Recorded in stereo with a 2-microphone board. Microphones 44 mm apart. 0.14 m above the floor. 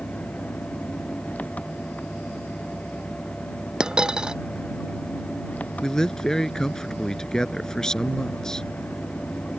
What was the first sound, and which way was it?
An engine running, 35° left (ahead or behind).